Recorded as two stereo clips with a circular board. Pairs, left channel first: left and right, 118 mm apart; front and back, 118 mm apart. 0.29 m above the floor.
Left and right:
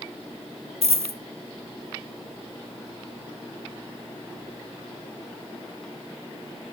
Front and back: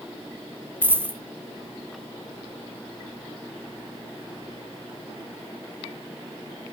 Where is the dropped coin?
110° right, 1.0 m.